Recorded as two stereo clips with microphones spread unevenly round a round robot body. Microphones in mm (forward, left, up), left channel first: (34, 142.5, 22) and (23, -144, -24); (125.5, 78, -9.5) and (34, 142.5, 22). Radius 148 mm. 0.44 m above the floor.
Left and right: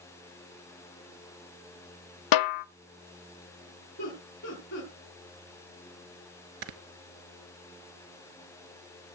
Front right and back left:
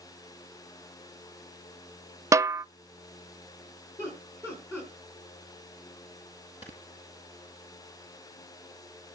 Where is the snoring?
105° right, 1.1 m.